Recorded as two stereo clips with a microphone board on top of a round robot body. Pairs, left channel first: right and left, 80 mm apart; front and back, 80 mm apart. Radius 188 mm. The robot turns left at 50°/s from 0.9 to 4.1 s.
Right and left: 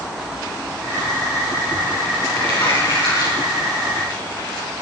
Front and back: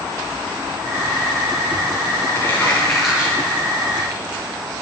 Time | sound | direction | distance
2.4 | crumpling | 60° right | 7.5 m